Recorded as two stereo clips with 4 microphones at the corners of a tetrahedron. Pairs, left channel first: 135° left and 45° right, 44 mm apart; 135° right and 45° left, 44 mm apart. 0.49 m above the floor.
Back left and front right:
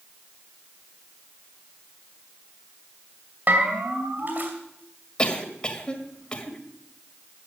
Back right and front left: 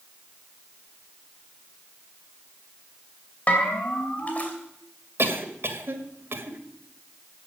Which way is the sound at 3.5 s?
85° right.